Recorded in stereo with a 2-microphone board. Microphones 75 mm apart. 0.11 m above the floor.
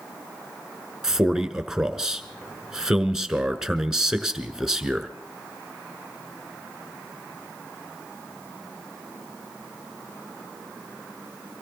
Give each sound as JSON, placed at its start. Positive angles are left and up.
{"t": 1.0, "sound": "a man speaking", "side_deg": -5, "distance_m": 1.3}